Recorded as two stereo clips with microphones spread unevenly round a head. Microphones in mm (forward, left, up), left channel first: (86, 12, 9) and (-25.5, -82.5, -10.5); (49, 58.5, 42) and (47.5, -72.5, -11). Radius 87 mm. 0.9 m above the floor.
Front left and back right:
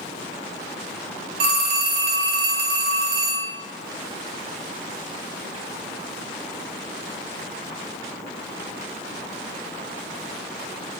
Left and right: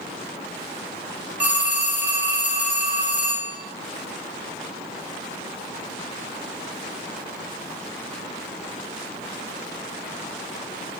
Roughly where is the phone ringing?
Behind.